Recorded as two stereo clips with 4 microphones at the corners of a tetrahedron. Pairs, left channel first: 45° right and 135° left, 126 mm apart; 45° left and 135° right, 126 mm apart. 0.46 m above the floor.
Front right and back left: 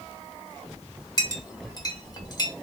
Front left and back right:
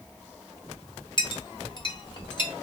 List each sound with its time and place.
1.2 s a clink: straight ahead, 0.8 m